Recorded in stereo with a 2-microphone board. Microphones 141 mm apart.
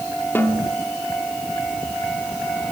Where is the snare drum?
15° left (ahead or behind), 2 m.